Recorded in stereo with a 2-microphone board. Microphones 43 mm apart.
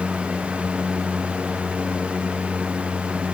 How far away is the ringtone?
I don't hear a ringtone.